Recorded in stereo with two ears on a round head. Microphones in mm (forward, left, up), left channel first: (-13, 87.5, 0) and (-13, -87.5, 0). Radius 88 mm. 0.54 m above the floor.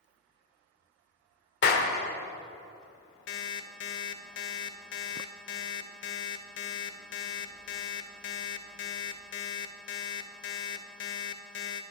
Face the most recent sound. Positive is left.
turn(degrees=70)  # may be behind; listen again after turning